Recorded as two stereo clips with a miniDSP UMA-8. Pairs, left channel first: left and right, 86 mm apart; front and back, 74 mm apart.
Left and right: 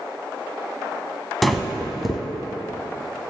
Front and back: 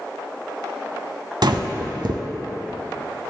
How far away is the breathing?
About 0.6 m.